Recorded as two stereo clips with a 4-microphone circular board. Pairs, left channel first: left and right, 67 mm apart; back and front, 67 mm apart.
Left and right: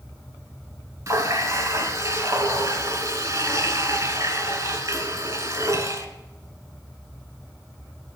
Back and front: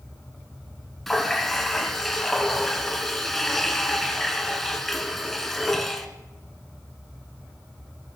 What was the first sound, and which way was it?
A running tap, 95° right.